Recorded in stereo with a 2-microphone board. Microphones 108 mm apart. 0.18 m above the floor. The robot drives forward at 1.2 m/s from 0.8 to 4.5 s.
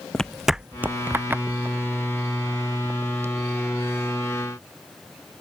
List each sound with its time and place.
0.1 s footsteps: 10° left (ahead or behind); by 3.5 s 25° right (ahead or behind)